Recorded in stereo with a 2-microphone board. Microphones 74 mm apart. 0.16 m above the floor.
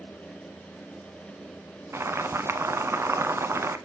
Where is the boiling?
35° right (ahead or behind), 1.0 m.